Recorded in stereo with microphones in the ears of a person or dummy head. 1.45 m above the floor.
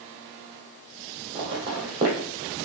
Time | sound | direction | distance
1.4 | footsteps | 25° right (ahead or behind) | 1.9 m